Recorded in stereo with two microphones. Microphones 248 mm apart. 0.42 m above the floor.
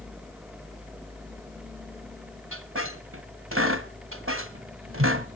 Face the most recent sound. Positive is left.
turn(degrees=-60)  # may be behind; listen again after turning